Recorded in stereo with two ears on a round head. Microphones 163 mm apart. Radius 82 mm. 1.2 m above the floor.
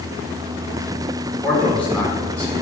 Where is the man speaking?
5° left (ahead or behind), 3.5 m.